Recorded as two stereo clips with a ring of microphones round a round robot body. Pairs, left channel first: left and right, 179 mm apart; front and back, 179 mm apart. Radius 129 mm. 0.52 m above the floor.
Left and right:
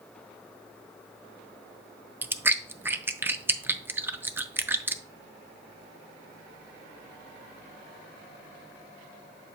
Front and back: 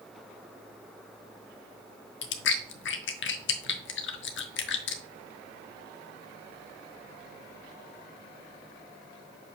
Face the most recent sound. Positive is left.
turn(degrees=-10)